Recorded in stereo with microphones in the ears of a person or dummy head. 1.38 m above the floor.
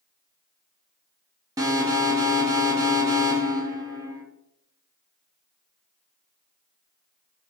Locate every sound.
1.6 s an alarm: 20° right (ahead or behind), 0.9 m